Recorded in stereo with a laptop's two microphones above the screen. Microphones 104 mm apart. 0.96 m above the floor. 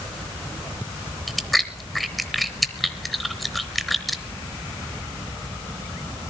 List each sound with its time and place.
1.3 s chewing: centre (ahead or behind), 0.7 m